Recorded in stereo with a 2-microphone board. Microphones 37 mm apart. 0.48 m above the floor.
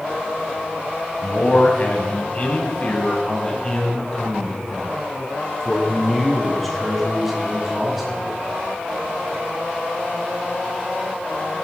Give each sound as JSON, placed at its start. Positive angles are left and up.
{"t": 1.2, "sound": "a man speaking", "side_deg": 45, "distance_m": 4.0}